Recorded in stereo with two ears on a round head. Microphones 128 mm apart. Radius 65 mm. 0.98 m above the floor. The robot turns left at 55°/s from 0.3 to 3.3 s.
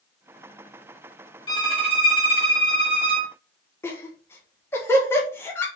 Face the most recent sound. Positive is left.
turn(degrees=15)  # may be behind; listen again after turning